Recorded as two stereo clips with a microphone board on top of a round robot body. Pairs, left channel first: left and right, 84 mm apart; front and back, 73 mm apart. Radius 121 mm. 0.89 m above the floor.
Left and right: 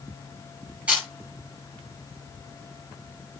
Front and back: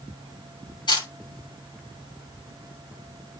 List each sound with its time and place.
0.9 s a camera shutter: 15° right, 6.5 m